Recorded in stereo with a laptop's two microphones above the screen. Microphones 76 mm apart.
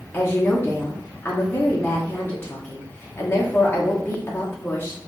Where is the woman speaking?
25° left (ahead or behind), 0.9 m.